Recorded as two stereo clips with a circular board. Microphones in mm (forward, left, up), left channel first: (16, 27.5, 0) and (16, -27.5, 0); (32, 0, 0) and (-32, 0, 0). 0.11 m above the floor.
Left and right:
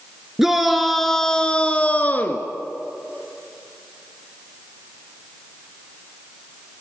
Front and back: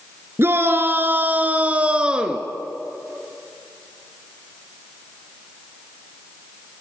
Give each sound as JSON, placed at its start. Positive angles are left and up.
{"t": 0.4, "sound": "a shout", "azimuth_deg": -170, "distance_m": 2.0}